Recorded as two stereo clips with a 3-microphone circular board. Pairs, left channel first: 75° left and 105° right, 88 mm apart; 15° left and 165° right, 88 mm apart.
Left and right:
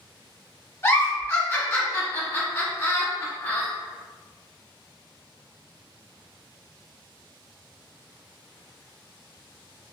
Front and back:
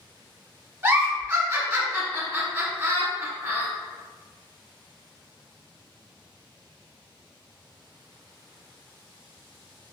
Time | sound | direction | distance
0.8 | a giggle | 140° left | 1.2 m